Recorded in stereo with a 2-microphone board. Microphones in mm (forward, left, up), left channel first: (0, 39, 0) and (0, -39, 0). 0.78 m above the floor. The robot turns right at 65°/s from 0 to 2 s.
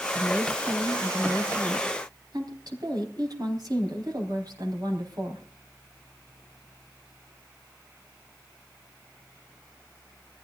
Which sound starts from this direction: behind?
A woman speaking, at 0.1 s.